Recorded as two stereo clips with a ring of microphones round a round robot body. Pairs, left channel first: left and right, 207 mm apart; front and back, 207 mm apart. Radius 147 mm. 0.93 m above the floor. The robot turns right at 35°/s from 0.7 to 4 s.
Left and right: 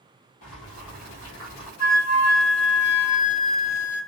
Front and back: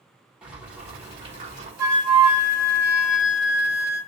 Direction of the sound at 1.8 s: 105° left.